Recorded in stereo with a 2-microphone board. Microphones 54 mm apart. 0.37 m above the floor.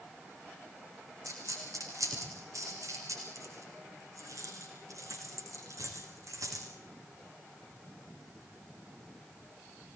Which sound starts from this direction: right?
A dropped coin, at 1.2 s.